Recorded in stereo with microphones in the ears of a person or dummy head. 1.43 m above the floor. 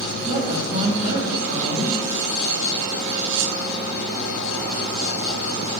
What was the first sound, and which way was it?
A woman speaking, 45° right (ahead or behind).